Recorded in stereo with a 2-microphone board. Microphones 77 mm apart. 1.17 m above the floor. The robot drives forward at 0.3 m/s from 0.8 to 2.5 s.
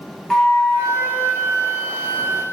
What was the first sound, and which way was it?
A flute, 5° left (ahead or behind).